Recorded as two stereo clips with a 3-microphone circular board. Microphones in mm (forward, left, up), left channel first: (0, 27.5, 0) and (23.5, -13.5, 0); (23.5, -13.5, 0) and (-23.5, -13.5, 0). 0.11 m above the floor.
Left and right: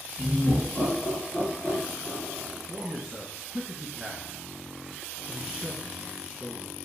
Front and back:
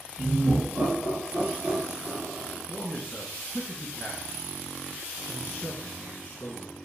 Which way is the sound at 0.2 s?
125° left.